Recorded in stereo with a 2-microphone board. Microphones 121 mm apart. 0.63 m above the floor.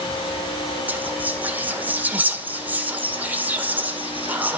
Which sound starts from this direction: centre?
Whispering, at 0.9 s.